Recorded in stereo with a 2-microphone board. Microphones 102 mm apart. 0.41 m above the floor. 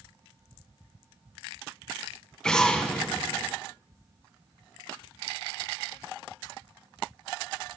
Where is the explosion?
10° left (ahead or behind), 1.8 m.